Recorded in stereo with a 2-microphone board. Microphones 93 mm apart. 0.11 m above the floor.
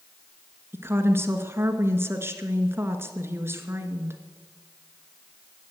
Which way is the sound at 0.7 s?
25° right (ahead or behind).